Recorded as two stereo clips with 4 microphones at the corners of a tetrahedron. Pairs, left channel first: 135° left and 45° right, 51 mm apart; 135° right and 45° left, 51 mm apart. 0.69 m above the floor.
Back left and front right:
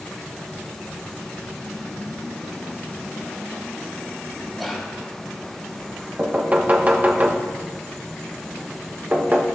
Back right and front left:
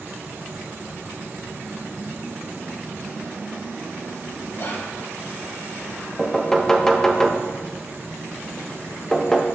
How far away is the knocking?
About 0.9 m.